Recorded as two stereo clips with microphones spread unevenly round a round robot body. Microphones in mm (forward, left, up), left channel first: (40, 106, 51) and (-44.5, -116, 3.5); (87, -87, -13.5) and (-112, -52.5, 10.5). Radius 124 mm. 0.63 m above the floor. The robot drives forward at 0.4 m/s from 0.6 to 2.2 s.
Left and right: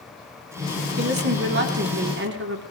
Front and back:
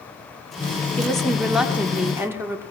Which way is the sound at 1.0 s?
90° right.